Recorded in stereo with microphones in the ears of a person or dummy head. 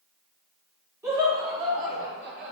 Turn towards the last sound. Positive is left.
turn(degrees=-65)  # may be behind; listen again after turning